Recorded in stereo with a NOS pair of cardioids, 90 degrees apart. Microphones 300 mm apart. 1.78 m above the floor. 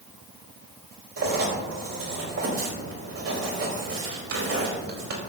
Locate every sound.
1.2 s writing: 55° right, 5 m